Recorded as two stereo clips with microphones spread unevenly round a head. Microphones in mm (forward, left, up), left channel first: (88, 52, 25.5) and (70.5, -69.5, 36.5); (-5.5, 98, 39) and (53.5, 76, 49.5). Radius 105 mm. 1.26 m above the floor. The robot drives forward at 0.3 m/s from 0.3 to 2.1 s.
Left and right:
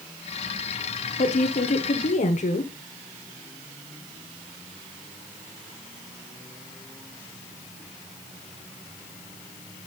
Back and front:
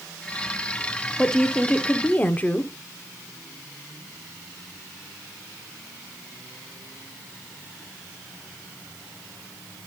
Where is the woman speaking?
80° left, 0.9 m; by 2.7 s 100° left, 0.9 m.